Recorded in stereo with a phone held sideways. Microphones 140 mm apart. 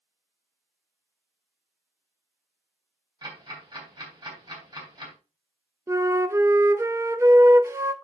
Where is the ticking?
35° right (ahead or behind), 3.5 m.